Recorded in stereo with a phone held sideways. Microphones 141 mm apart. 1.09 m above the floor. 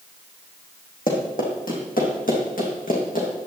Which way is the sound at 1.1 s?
70° left (ahead or behind).